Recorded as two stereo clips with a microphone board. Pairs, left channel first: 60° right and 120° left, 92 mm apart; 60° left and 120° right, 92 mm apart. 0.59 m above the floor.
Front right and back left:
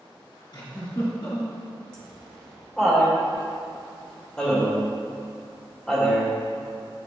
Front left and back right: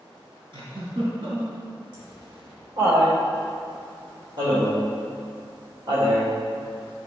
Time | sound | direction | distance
0.5 | a giggle | 100° right | 2 m
1.9 | laughter | 140° right | 2.5 m